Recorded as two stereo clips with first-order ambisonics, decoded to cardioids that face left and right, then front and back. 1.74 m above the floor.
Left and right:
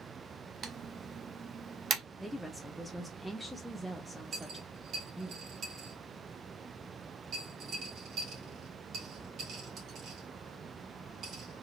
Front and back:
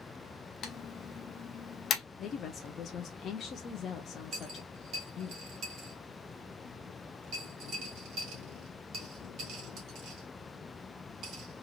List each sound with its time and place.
0.6 s typing on a keyboard: 45° right, 0.8 m
2.2 s a woman speaking: 5° right, 0.6 m
4.3 s a dropped coin: 135° right, 2.5 m